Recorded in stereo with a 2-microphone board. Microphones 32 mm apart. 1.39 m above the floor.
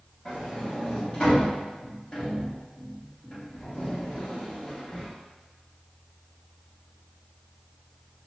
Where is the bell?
No bell in this recording.